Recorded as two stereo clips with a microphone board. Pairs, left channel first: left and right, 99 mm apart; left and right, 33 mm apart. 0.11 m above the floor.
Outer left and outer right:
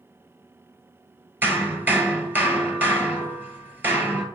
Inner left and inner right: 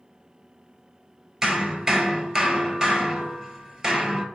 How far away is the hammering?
About 1.1 m.